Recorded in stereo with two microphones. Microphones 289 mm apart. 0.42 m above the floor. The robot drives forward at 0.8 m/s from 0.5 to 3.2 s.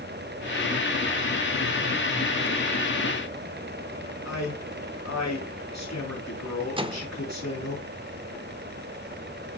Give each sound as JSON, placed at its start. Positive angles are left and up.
{"t": 4.2, "sound": "a man speaking", "side_deg": 65, "distance_m": 5.5}
{"t": 6.8, "sound": "a microwave", "side_deg": -20, "distance_m": 0.6}